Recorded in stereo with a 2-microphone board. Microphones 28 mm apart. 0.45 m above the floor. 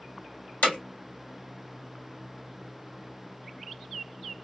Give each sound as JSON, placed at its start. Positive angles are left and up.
{"t": 0.6, "sound": "hammering", "side_deg": 60, "distance_m": 2.5}